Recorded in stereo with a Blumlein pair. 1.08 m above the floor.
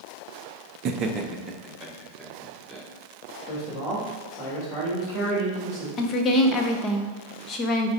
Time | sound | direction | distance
0.8 | laughter | 35° right | 0.7 m
3.5 | a man speaking | 20° left | 3 m
6.0 | a woman speaking | 25° left | 1.0 m